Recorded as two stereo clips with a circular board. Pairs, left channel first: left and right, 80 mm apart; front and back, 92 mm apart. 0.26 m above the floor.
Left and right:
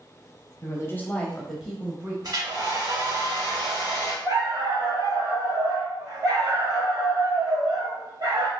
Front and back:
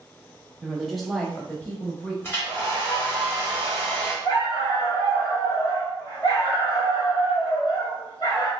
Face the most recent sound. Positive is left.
turn(degrees=-45)